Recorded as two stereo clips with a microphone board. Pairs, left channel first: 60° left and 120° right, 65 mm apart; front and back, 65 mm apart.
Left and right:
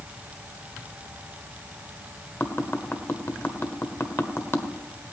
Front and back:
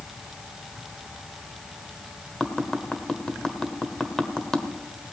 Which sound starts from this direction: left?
Tapping, at 2.4 s.